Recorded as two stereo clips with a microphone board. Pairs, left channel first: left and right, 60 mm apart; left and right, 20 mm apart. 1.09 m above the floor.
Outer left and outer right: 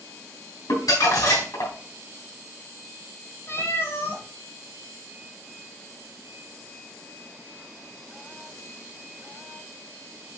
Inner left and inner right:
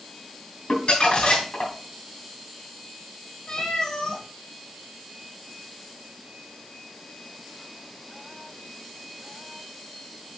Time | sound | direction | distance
0.7 | crumpling | 75° left (ahead or behind) | 3 m
3.5 | a cat meowing | 45° left (ahead or behind) | 3 m